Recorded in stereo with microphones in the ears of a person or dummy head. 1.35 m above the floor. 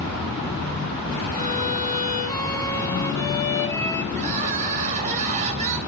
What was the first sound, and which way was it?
A violin, 15° left (ahead or behind).